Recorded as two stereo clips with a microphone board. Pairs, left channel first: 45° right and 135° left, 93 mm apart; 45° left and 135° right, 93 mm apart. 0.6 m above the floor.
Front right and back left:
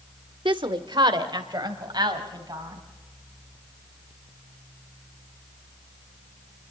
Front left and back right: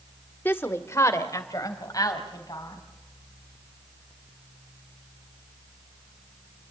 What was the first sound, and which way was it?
A woman speaking, 110° left.